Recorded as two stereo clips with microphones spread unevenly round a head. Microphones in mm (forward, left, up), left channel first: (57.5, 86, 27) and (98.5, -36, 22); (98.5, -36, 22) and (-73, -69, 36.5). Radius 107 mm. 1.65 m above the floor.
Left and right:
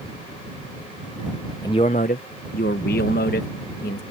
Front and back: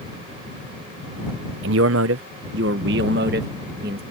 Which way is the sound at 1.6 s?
Straight behind.